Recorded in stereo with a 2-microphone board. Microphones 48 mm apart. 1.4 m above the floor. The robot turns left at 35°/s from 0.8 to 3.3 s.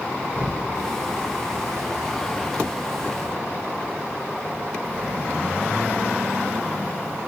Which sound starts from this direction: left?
An explosion, at 0.3 s.